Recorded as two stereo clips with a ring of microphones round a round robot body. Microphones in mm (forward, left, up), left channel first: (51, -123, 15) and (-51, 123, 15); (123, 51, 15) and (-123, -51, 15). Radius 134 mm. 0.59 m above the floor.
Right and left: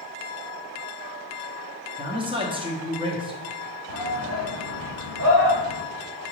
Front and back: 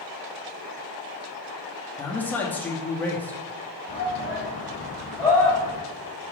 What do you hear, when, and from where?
2.0 s a man speaking: 95° left, 0.9 m
3.9 s a shout: 115° left, 2.5 m